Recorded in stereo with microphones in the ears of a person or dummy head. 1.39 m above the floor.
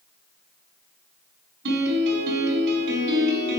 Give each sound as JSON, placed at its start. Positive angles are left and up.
{"t": 1.6, "sound": "a piano", "side_deg": -65, "distance_m": 5.0}